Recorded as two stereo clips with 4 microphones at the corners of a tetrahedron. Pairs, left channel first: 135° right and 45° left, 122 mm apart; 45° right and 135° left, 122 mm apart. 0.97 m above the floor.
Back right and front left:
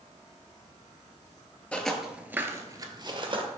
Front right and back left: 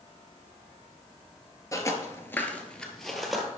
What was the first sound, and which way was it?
Footsteps, 65° right.